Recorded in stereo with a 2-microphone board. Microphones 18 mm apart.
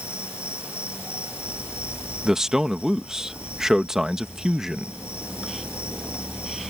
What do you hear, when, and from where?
0.0 s an insect: 85° right
2.2 s a man speaking: 30° right (ahead or behind)